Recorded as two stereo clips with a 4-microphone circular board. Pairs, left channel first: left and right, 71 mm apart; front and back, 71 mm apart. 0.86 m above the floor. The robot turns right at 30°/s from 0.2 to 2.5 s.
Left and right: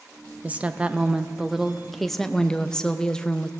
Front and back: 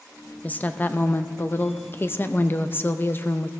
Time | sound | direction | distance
0.4 | a woman speaking | 45° right | 0.5 m